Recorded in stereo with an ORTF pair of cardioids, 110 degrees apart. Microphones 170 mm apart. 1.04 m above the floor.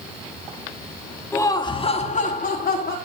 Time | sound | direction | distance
1.3 | laughter | 15° left | 2 m